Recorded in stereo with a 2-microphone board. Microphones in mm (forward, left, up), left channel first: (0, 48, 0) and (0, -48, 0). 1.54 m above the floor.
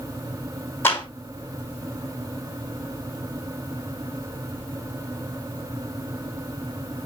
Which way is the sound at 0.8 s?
25° left (ahead or behind).